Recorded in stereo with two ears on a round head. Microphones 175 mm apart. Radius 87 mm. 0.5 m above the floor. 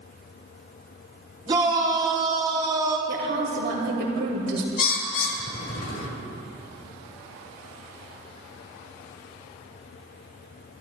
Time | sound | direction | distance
1.5 | a shout | 25° right (ahead or behind) | 2 m
3.1 | a woman speaking | 55° right (ahead or behind) | 2 m
4.8 | a bird | 45° left (ahead or behind) | 1.1 m